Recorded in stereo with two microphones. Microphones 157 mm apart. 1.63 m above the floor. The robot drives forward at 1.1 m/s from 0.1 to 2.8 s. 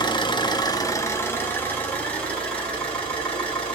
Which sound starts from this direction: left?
An engine running, at 0.0 s.